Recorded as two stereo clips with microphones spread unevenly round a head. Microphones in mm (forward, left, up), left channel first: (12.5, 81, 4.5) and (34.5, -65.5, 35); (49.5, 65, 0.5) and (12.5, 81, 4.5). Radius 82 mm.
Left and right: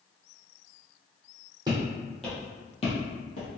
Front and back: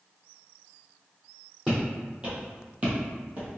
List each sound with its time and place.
1.7 s footsteps: 125° right, 1.4 m; by 3.5 s 125° left, 1.5 m